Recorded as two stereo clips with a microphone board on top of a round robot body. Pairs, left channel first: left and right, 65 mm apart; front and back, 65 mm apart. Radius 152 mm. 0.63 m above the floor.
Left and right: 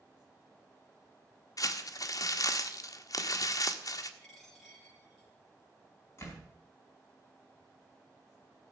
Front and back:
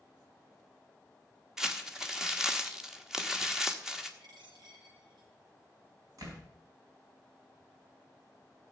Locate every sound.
1.6 s crumpling: 100° left, 1.3 m
4.2 s a dropped coin: straight behind, 6.5 m
6.2 s a door slam: 145° left, 4.5 m